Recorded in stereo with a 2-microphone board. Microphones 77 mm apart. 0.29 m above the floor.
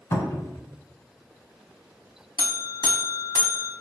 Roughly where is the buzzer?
Left.